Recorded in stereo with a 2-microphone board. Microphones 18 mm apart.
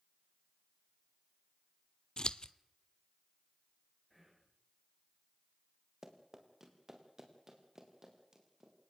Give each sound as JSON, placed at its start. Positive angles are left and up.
{"t": 2.2, "sound": "scissors", "side_deg": 50, "distance_m": 0.7}
{"t": 4.1, "sound": "whispering", "side_deg": 0, "distance_m": 9.5}
{"t": 6.0, "sound": "running footsteps", "side_deg": -25, "distance_m": 4.0}